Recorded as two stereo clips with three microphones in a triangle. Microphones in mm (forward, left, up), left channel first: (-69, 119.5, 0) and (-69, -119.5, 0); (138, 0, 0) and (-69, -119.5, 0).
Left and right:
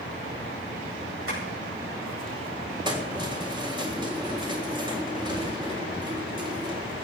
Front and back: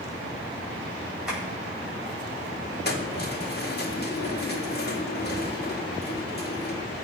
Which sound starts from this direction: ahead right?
Tapping, at 1.3 s.